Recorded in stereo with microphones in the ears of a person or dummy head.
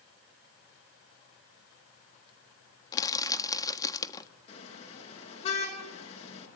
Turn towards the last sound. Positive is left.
turn(degrees=40)  # may be behind; listen again after turning